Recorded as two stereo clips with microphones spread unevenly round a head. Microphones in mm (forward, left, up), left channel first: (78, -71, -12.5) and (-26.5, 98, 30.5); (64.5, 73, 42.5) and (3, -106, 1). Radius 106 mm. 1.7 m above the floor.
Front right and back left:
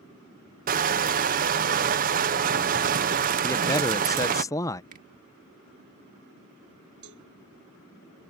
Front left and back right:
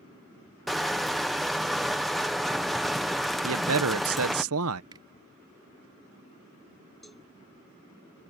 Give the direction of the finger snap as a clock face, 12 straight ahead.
6 o'clock.